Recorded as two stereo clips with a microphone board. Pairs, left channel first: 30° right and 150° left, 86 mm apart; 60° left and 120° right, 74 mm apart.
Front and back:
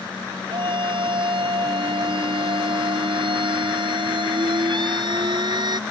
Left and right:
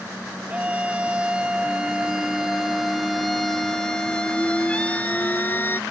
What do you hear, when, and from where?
0.5 s a scream: 165° left; by 5.8 s 120° left